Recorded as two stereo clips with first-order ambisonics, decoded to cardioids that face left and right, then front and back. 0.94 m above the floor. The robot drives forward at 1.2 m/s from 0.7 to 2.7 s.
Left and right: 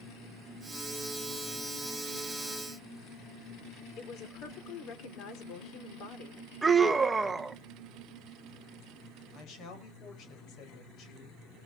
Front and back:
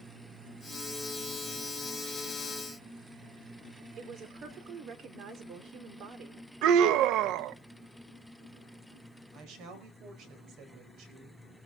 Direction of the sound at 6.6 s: 165° right.